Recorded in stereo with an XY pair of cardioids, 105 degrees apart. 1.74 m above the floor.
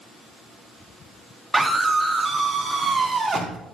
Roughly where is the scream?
Ahead.